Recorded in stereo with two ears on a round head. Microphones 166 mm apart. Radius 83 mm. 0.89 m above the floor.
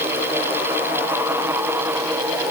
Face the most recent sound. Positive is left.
No sound to turn to.